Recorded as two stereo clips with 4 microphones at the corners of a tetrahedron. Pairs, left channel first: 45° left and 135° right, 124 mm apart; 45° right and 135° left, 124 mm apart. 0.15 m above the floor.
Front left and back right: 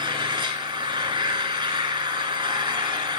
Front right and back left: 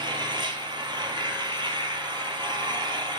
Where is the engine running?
Straight behind, 0.9 m.